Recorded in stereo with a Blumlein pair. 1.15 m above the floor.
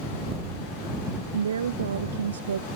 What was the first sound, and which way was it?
A woman speaking, 70° right.